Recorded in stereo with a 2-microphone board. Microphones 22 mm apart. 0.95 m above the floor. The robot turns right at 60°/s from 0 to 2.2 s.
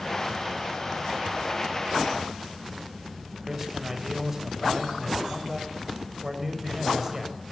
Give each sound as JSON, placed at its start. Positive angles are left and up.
{"t": 3.4, "sound": "a man speaking", "side_deg": -15, "distance_m": 5.5}